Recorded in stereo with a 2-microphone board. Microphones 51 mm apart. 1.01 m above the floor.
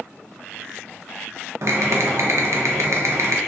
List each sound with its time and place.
1.6 s typing on a keyboard: 60° right (ahead or behind), 0.6 m